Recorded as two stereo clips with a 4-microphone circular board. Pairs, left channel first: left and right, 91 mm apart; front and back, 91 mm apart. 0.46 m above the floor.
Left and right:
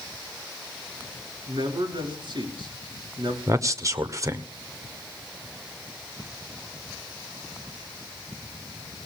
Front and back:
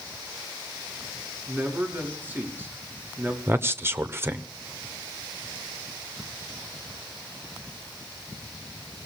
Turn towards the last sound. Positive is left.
turn(degrees=-125)